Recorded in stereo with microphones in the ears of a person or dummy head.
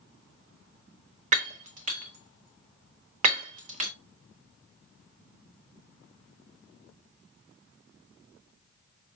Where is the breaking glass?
40° right (ahead or behind), 0.6 m.